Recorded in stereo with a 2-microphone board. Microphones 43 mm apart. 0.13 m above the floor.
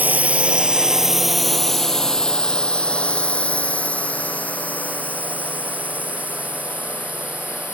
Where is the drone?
40° right (ahead or behind); by 7.8 s 45° left (ahead or behind).